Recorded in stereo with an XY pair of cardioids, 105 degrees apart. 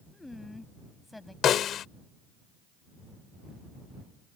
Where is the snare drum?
65° left.